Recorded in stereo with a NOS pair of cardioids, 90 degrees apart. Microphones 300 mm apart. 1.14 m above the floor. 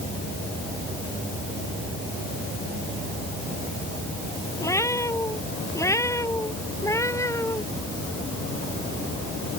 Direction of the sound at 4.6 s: 10° left.